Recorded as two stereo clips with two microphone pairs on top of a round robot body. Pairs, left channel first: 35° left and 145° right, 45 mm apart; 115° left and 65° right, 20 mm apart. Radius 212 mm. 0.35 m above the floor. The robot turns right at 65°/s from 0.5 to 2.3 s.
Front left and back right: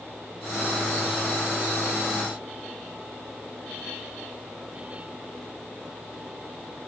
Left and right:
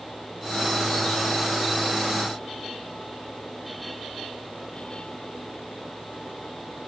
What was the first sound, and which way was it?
Only background noise.